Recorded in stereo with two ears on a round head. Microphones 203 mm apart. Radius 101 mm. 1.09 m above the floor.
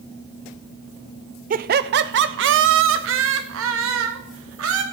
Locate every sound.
1.5 s laughter: 35° right (ahead or behind), 0.6 m; by 4.8 s 70° right (ahead or behind), 2.5 m